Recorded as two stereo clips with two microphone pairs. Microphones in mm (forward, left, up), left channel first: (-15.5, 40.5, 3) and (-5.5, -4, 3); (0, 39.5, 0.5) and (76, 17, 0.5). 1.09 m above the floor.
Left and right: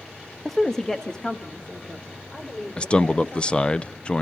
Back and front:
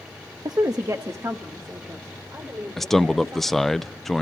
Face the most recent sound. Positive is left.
turn(degrees=70)